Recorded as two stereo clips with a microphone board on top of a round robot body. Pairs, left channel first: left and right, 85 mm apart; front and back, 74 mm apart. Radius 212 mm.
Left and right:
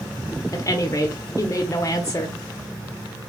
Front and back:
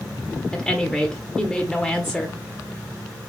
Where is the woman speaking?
80° left, 1.0 m.